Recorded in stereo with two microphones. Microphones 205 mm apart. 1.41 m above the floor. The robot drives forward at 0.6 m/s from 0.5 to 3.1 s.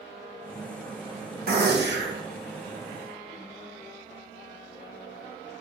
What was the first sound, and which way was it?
A gunshot, 50° right (ahead or behind).